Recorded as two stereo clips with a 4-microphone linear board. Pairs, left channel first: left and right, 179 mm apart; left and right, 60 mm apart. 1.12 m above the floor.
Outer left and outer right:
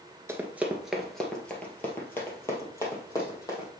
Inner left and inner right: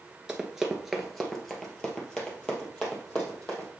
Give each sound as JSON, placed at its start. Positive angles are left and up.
{"t": 0.3, "sound": "running footsteps", "side_deg": -15, "distance_m": 1.1}